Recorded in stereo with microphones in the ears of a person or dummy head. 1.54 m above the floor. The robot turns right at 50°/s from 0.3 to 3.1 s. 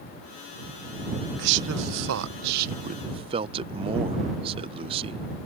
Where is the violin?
I don't hear a violin.